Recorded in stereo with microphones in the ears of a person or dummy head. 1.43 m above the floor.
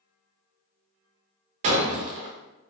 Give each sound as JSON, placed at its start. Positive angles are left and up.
{"t": 1.6, "sound": "breaking glass", "side_deg": -40, "distance_m": 0.8}